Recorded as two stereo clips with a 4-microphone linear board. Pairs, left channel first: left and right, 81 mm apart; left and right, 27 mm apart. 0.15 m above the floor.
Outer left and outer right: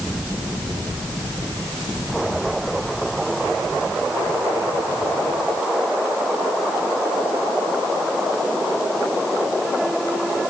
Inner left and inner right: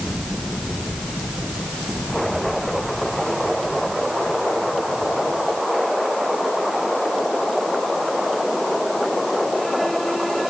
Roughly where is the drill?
I don't hear a drill.